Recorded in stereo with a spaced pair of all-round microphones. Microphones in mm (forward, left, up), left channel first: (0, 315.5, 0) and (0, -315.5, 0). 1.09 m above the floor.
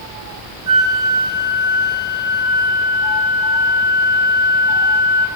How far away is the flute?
About 3 m.